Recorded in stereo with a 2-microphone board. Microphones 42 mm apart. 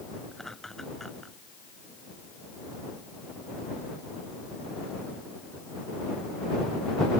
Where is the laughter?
10° left (ahead or behind).